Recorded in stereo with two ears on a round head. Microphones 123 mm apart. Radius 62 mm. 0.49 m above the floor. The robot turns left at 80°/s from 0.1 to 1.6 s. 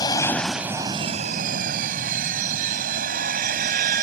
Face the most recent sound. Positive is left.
turn(degrees=-90)